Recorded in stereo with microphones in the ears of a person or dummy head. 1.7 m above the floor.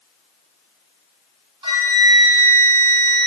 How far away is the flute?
About 1.5 m.